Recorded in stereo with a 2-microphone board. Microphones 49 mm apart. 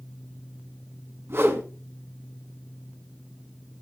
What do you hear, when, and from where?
1.3 s a whoosh: 60° right (ahead or behind), 1.8 m